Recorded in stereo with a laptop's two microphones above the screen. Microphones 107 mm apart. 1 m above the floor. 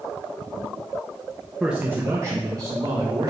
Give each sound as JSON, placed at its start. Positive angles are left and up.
{"t": 1.6, "sound": "a man speaking", "side_deg": -5, "distance_m": 0.7}